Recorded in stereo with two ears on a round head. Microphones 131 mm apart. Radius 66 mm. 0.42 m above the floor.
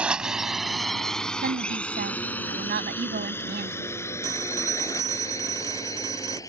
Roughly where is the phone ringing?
Right.